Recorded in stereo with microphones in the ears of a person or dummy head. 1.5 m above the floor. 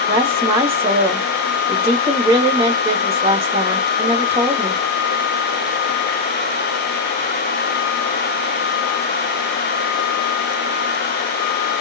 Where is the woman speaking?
15° right (ahead or behind), 1.3 m.